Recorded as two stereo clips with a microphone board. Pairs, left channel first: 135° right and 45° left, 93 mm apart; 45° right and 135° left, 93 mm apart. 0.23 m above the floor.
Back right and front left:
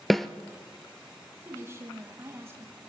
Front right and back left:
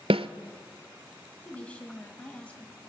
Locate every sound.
0.1 s a snare drum: 135° left, 0.7 m
1.4 s a woman speaking: 20° left, 1.6 m